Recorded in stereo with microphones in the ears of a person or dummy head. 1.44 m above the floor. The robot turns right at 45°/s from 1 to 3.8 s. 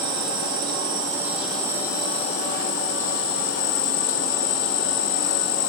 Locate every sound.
0.0 s an insect: 25° right, 3.5 m; by 5.7 s 100° left, 3.5 m